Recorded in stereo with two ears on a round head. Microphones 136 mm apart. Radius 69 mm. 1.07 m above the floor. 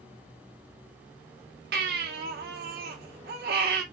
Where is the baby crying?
70° right (ahead or behind), 1.3 m.